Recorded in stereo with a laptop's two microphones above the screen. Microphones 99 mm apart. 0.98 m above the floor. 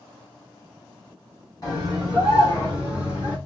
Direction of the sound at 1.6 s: 40° left (ahead or behind).